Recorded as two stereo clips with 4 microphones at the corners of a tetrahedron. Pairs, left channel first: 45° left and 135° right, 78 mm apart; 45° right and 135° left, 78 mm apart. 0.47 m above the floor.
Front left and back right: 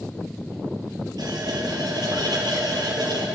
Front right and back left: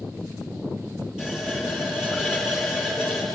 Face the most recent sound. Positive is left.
turn(degrees=-145)